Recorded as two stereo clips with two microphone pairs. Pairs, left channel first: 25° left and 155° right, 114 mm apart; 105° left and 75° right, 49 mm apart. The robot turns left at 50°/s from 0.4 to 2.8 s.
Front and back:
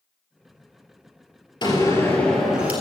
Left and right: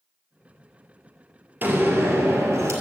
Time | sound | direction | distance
1.6 | a door slam | 25° right | 2.5 m